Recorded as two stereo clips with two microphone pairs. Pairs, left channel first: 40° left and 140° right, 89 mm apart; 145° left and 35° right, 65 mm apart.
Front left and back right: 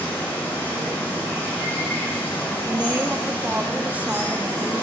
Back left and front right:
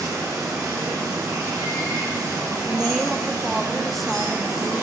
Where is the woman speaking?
125° right, 0.9 m.